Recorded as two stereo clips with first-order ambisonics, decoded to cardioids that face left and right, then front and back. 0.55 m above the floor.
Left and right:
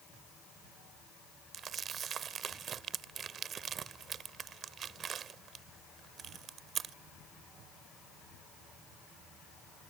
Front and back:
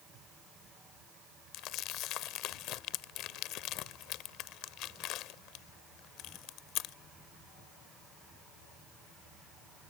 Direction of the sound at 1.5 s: 30° right.